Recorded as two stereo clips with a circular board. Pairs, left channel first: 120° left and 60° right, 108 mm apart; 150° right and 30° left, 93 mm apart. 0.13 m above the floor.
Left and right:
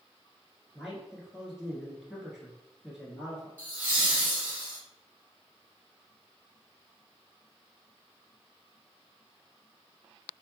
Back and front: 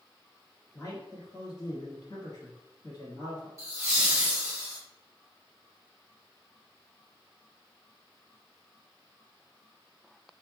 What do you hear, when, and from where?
0.7 s a man speaking: 145° right, 1.6 m
3.6 s laughter: straight ahead, 1.8 m